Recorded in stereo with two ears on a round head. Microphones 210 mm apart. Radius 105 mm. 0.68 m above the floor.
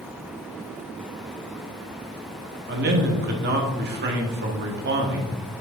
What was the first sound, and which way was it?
A man speaking, 45° right (ahead or behind).